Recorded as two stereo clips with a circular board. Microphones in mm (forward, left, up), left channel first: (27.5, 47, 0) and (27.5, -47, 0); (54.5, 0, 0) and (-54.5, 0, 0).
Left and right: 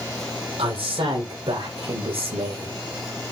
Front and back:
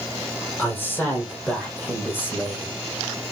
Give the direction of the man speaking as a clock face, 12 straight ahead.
2 o'clock.